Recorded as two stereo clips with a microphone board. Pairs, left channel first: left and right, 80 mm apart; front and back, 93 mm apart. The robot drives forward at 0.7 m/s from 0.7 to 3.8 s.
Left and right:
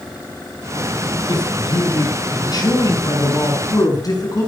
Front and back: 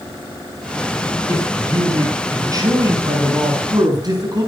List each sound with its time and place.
1.3 s a man speaking: 120° left, 5.5 m; by 4.5 s 135° left, 6.5 m